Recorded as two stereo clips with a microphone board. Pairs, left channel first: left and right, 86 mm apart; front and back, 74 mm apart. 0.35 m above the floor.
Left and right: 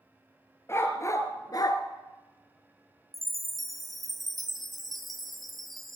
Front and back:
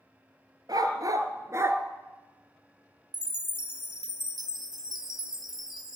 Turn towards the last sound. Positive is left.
turn(degrees=180)